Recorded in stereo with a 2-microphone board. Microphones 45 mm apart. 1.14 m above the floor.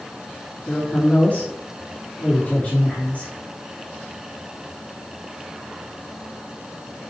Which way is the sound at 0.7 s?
35° left (ahead or behind).